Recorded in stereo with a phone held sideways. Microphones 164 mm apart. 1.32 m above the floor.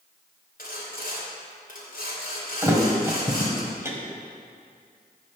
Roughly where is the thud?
Centre.